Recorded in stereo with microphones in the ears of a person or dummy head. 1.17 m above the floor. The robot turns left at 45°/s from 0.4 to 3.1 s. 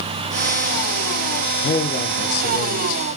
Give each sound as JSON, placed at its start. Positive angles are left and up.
{"t": 1.6, "sound": "a man speaking", "azimuth_deg": 120, "distance_m": 0.5}